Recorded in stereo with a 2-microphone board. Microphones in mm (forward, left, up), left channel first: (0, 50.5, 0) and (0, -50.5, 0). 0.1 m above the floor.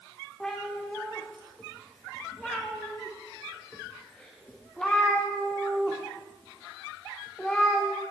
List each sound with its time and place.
0.4 s a cat meowing: 10° left (ahead or behind), 6 m